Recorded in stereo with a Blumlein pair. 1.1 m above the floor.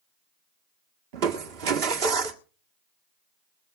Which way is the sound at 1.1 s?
45° right.